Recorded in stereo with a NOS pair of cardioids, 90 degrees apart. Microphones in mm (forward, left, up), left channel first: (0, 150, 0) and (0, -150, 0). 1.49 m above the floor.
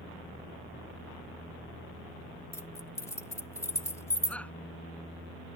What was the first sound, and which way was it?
Keys jangling, 10° left.